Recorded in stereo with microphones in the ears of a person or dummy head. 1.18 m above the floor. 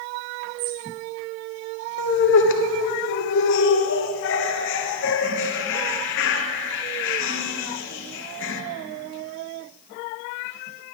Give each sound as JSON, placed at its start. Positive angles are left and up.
{"t": 0.6, "sound": "a bird", "side_deg": -65, "distance_m": 1.5}
{"t": 2.0, "sound": "laughter", "side_deg": 65, "distance_m": 1.2}